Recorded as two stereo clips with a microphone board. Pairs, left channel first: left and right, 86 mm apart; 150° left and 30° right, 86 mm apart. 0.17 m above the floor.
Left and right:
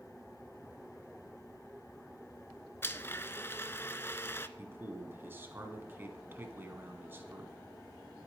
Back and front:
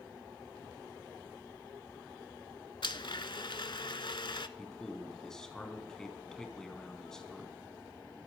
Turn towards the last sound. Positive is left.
turn(degrees=-130)